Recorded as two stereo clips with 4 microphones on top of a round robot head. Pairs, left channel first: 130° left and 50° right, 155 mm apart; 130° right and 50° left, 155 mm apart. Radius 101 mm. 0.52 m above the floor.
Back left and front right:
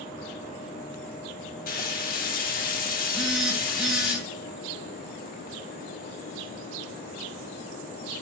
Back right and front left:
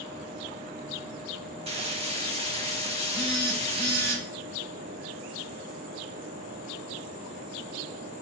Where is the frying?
100° left, 1.9 m.